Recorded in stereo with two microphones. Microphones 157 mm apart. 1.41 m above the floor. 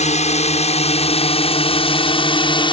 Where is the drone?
45° left (ahead or behind); by 2.7 s 30° left (ahead or behind).